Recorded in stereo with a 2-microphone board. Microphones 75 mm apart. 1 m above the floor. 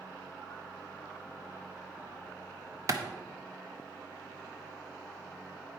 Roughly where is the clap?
Right.